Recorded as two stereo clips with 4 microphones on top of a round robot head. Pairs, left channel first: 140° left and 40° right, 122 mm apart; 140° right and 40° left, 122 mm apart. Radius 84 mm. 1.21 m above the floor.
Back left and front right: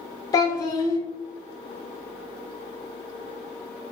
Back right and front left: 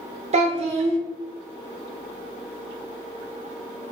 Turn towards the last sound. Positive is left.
turn(degrees=75)